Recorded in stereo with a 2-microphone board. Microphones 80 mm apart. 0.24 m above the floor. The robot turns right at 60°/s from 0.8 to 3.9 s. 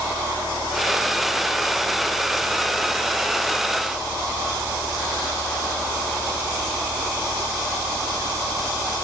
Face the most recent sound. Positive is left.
No sound to turn to.